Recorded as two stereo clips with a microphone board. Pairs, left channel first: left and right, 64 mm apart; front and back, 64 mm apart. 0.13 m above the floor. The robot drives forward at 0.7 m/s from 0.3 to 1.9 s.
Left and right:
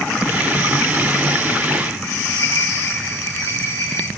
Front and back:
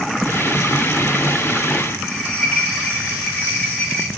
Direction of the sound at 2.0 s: 70° left.